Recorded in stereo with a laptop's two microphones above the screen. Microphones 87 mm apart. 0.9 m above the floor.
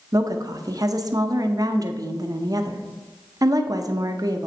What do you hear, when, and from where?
0.1 s a woman speaking: 45° right (ahead or behind), 0.6 m